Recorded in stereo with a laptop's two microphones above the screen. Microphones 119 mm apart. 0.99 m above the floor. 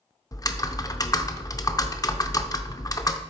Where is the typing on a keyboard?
30° left (ahead or behind), 0.6 m.